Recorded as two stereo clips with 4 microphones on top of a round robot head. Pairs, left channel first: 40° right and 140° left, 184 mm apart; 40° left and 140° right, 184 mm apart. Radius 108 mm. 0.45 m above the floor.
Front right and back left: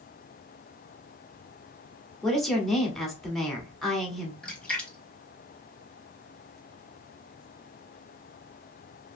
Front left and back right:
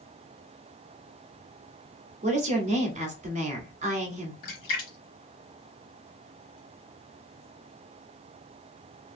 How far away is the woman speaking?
About 1.1 m.